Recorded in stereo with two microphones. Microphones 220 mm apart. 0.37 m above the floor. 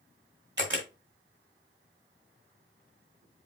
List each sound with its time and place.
0.6 s a camera shutter: 55° right (ahead or behind), 1.4 m